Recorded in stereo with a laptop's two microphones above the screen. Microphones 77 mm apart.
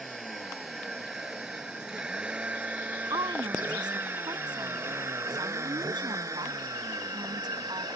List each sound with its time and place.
0.0 s a vehicle: centre (ahead or behind); by 8.0 s 60° right (ahead or behind)
3.1 s a woman speaking: 70° right (ahead or behind)